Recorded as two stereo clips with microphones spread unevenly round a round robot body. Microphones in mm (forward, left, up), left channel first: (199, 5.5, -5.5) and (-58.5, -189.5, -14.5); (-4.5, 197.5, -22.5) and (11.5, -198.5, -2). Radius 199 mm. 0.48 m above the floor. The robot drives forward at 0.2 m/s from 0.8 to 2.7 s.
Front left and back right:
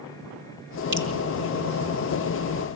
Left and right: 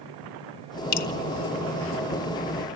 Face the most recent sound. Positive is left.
turn(degrees=160)